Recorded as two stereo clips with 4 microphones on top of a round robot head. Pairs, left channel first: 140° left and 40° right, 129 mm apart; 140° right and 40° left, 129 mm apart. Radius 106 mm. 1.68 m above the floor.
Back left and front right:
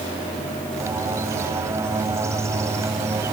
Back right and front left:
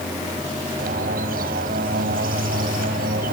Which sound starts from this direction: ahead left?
A bird, at 0.8 s.